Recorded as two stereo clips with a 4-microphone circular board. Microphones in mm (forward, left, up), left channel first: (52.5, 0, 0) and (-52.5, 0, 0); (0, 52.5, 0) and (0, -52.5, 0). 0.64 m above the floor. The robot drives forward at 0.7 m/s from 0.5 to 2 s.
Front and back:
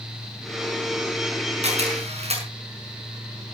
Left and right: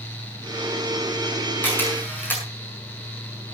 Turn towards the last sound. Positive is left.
turn(degrees=160)